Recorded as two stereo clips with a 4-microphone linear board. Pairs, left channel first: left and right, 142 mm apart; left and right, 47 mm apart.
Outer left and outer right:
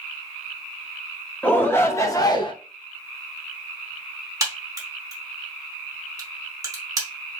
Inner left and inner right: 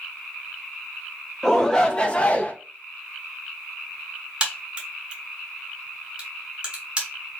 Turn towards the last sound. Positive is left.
turn(degrees=-25)  # may be behind; listen again after turning